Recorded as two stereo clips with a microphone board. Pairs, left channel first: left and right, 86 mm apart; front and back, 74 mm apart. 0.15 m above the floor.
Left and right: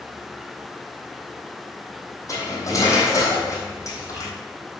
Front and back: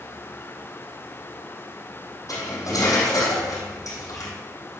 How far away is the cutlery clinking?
About 3.5 m.